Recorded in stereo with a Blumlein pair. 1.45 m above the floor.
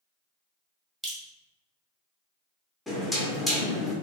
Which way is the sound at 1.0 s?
15° right.